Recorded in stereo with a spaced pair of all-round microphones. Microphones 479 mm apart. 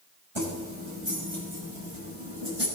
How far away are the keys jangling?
About 5.5 m.